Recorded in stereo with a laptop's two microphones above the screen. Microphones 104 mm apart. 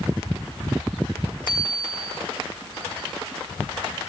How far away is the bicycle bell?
About 8 m.